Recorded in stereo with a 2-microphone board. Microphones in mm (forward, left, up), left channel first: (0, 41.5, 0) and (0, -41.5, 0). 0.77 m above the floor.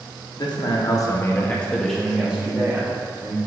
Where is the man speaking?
65° left (ahead or behind), 0.9 m; by 3.4 s 30° right (ahead or behind), 1.3 m.